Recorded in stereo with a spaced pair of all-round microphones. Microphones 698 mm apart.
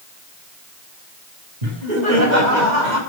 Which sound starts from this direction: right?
Laughter, at 1.6 s.